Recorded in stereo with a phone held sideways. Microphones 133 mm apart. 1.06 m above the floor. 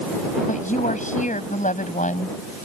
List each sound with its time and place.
0.5 s a woman speaking: 85° left